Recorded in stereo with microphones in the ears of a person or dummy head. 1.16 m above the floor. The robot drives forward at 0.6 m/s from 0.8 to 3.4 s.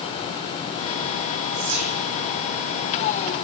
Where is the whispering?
85° right, 3.5 m.